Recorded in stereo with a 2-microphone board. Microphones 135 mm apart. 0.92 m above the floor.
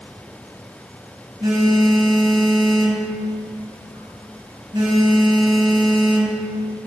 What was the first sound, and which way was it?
A phone buzzing, 35° right (ahead or behind).